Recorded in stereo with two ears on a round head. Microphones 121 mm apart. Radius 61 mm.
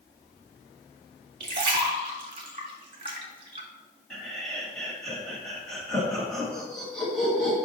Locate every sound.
1.4 s a splash: 40° right (ahead or behind), 1.6 m
4.1 s laughter: 5° left (ahead or behind), 2 m